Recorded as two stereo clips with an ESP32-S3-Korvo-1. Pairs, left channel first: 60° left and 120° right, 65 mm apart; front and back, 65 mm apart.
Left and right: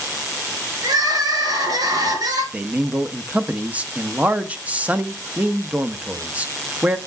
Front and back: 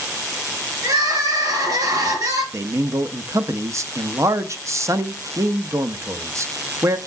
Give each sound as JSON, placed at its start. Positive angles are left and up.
{"t": 0.8, "sound": "crying", "azimuth_deg": -145, "distance_m": 5.0}
{"t": 2.5, "sound": "a man speaking", "azimuth_deg": 175, "distance_m": 0.7}